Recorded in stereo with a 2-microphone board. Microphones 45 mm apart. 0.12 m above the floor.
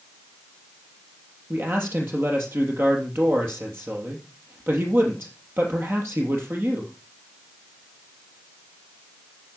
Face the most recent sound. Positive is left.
turn(degrees=-55)  # may be behind; listen again after turning